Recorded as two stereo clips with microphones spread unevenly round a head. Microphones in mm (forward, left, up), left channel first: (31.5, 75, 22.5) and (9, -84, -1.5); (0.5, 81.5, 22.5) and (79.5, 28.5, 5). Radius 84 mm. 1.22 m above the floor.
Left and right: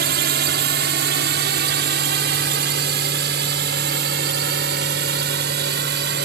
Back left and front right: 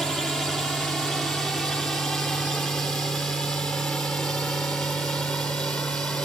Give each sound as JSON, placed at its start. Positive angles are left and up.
{"t": 0.0, "sound": "a drone", "azimuth_deg": -125}